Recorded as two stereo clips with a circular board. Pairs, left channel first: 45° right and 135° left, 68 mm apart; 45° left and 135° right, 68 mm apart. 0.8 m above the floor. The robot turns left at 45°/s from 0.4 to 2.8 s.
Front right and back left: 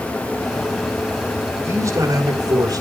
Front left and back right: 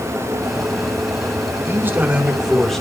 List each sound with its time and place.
1.6 s a man speaking: straight behind, 2.5 m; by 2.8 s 125° left, 2.5 m